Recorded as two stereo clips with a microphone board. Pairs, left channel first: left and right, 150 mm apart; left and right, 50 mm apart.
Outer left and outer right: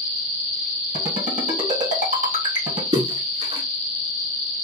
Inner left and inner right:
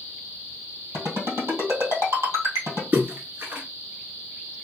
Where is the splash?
40° right (ahead or behind), 1.6 m.